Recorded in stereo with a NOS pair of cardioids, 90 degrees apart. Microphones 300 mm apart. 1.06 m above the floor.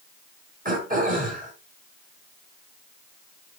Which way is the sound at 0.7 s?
25° right.